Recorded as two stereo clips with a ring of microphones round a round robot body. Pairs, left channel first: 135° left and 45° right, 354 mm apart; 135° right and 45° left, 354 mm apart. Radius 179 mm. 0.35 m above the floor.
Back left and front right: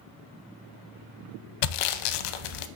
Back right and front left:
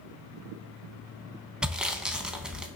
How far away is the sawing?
About 0.6 m.